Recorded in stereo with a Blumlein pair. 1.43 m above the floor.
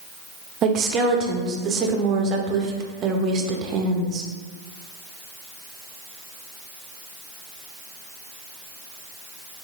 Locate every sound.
0.6 s a woman speaking: 30° right, 0.6 m